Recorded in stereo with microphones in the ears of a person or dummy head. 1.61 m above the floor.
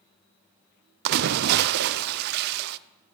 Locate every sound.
1.1 s a splash: 60° right (ahead or behind), 0.5 m